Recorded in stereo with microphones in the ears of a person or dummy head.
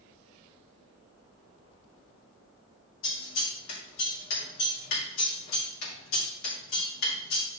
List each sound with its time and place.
3.0 s scissors: 75° left (ahead or behind), 3 m